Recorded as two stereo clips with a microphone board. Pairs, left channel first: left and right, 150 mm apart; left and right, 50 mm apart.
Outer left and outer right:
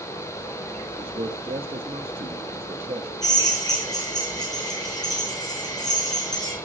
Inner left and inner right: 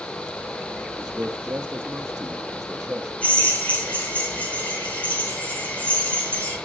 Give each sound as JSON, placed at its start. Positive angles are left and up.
{"t": 1.0, "sound": "a man speaking", "side_deg": -40, "distance_m": 1.0}
{"t": 3.2, "sound": "a drill", "side_deg": 25, "distance_m": 7.5}